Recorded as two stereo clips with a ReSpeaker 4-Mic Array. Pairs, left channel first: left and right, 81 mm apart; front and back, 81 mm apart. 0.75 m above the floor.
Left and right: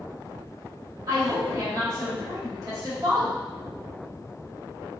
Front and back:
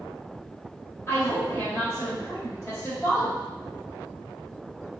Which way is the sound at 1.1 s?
55° right.